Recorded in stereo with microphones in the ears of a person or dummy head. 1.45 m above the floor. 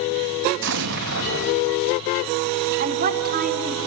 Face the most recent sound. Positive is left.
turn(degrees=-40)  # may be behind; listen again after turning